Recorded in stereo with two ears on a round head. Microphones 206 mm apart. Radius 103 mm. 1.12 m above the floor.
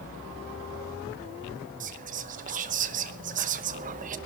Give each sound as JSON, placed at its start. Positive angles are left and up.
{"t": 1.8, "sound": "whispering", "side_deg": -35, "distance_m": 0.9}